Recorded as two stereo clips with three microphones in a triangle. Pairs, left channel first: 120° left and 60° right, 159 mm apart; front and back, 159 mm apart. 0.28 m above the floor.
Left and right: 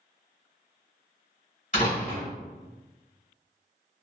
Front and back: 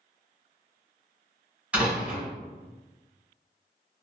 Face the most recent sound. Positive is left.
turn(degrees=100)